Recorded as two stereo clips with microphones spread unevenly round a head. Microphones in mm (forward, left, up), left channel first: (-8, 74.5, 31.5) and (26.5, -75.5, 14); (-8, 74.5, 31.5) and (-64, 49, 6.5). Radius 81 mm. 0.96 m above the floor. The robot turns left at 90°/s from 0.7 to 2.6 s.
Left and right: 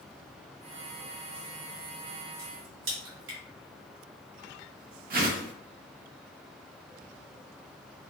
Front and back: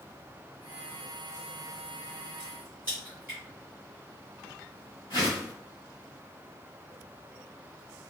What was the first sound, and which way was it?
A crack, 50° right.